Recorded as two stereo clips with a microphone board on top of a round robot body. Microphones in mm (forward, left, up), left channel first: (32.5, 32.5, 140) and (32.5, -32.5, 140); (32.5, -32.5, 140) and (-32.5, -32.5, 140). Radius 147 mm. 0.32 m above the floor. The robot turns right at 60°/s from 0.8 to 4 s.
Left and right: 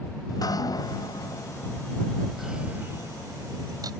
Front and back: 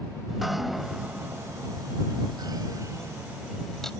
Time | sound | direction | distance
0.3 | dripping | 90° left | ?